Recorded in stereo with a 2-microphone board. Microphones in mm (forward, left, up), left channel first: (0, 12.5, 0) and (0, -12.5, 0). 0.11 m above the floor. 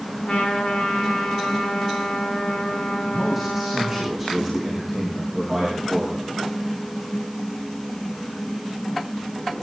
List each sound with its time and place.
0.2 s a trumpet: 70° left (ahead or behind), 7 m
3.0 s a man speaking: centre (ahead or behind), 6.5 m